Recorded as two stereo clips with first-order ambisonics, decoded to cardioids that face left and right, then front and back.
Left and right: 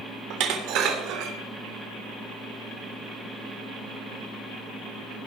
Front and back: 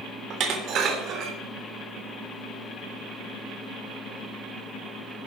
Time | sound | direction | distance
0.3 | dishes clattering | 130° right | 3 m